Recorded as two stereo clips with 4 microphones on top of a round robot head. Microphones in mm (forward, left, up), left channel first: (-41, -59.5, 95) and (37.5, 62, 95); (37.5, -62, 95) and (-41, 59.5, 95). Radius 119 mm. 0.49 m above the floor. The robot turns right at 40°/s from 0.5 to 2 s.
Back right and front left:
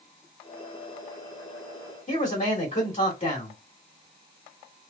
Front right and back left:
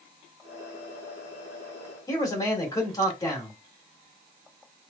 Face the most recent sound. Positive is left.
turn(degrees=-110)